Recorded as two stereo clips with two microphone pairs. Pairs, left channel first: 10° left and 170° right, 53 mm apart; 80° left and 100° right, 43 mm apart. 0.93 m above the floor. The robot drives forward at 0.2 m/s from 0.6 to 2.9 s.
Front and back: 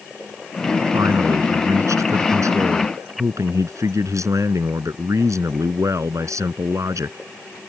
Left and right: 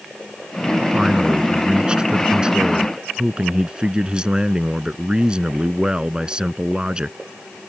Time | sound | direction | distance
0.9 | a man speaking | 170° right | ?